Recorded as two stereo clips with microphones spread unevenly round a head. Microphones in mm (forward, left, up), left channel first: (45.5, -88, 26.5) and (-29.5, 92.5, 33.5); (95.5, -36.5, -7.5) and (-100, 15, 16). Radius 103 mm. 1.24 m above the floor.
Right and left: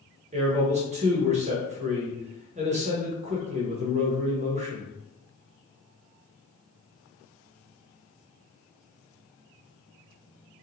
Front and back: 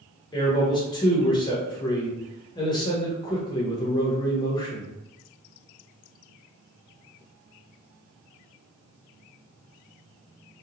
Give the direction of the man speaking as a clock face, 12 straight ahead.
10 o'clock.